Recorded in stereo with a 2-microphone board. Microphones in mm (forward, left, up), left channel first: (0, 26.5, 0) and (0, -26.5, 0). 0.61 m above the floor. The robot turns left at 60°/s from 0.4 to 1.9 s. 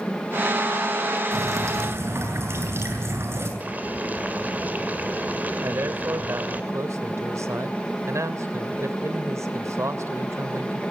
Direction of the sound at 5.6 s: 65° right (ahead or behind).